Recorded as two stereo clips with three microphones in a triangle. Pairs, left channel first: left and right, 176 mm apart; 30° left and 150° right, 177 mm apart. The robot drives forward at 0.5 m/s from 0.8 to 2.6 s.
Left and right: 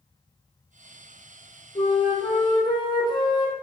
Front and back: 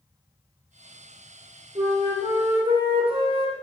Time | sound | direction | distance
1.8 | a flute | 150° left | 1.6 m